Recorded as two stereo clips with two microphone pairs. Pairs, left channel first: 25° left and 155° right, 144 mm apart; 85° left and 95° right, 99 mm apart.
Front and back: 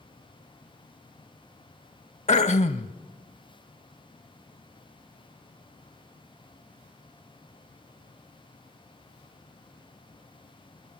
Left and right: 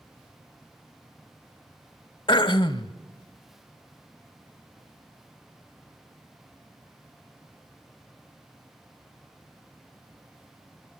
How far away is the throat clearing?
About 0.6 m.